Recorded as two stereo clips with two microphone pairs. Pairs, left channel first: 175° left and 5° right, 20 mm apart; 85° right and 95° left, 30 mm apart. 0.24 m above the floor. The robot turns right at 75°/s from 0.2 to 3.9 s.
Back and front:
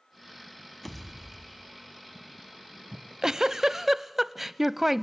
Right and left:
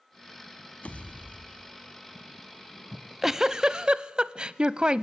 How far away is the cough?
No cough in this recording.